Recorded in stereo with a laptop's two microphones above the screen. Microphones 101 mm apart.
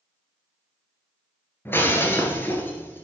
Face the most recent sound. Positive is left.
turn(degrees=20)  # may be behind; listen again after turning